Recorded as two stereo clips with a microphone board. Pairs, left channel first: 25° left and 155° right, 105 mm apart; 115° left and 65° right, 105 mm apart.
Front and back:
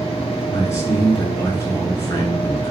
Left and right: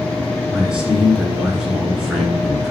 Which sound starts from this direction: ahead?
A man speaking, at 0.5 s.